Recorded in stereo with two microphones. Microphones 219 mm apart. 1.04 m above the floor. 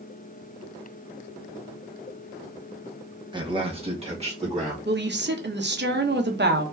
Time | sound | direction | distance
3.3 | a man speaking | 20° right (ahead or behind) | 0.9 m
4.8 | a woman speaking | 55° right (ahead or behind) | 0.9 m